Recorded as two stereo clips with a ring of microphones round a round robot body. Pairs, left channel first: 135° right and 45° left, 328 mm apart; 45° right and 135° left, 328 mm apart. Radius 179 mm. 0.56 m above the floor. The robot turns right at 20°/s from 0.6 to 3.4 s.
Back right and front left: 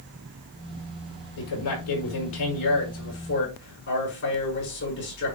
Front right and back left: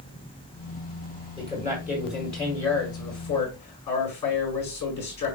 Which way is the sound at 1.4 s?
120° right.